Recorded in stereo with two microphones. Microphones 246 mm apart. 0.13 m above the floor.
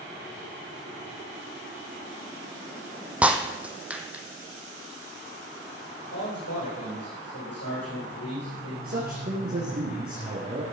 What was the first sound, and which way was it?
Breaking glass, 5° right (ahead or behind).